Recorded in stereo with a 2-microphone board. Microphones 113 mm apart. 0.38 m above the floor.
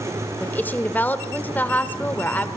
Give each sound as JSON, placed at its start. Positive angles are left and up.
{"t": 0.4, "sound": "a woman speaking", "side_deg": 15, "distance_m": 0.9}